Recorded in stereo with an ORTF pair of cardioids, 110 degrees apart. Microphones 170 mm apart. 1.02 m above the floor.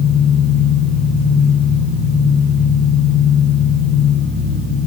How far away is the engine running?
About 7 m.